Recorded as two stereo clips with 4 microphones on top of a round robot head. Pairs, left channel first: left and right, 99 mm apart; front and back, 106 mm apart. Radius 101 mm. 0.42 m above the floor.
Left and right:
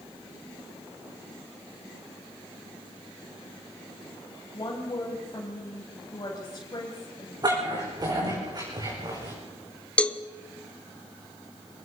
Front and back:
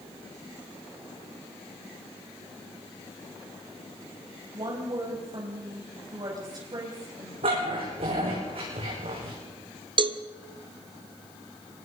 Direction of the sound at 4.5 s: 140° left.